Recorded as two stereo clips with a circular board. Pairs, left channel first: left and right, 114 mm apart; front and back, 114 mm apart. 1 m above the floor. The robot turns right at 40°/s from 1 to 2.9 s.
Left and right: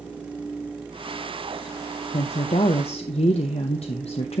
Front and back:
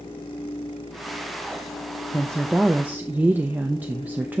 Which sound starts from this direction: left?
A woman speaking, at 2.1 s.